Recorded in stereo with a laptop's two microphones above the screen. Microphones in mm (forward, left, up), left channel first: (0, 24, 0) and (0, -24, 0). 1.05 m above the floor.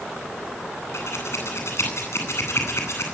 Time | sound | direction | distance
0.9 | scissors | 70° left (ahead or behind) | 10 m